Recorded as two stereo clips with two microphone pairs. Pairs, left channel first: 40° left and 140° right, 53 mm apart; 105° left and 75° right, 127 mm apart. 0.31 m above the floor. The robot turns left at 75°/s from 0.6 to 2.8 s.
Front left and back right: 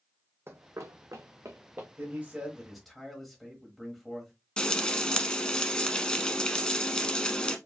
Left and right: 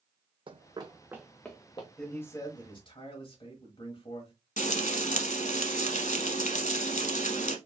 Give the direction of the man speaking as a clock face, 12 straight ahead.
6 o'clock.